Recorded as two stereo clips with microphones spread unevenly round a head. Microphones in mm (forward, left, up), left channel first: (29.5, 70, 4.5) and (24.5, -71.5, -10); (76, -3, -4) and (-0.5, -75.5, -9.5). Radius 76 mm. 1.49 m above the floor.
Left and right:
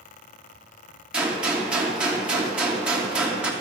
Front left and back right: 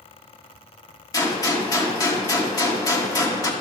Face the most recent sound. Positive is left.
turn(degrees=-5)